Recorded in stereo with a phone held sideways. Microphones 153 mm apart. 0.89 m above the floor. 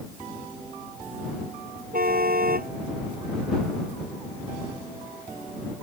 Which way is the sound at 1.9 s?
75° right (ahead or behind).